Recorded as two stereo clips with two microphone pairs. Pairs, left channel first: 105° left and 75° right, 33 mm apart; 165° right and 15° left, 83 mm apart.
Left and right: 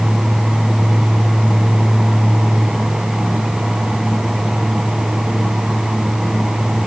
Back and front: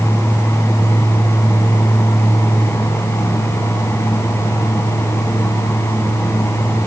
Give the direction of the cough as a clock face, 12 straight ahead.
No cough in this recording.